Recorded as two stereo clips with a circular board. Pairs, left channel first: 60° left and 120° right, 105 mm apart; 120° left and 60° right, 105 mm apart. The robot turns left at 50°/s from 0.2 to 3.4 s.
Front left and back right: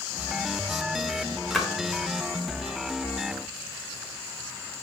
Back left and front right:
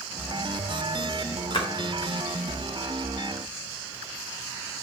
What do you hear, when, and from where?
1.5 s a splash: 145° left, 0.8 m; by 1.7 s 140° left, 0.8 m